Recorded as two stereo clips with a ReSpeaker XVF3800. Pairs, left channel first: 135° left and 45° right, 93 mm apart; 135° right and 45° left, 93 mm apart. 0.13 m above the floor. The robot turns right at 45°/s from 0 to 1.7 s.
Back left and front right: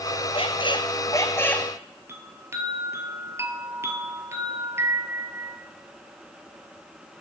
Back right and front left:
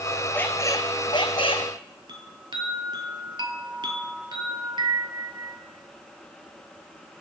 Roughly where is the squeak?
Behind left.